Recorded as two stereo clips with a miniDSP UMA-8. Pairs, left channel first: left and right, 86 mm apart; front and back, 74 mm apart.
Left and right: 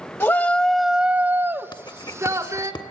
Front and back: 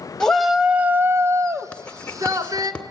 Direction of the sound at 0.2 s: 70° left.